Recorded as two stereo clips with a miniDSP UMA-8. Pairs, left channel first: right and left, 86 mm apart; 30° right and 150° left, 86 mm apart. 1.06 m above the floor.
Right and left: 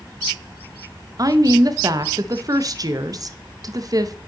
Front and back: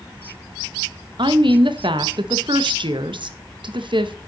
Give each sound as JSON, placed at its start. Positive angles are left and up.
{"t": 1.2, "sound": "a woman speaking", "azimuth_deg": 135, "distance_m": 0.8}